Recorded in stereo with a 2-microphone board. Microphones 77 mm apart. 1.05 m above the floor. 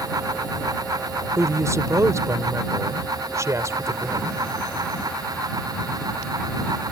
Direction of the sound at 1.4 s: 40° right (ahead or behind).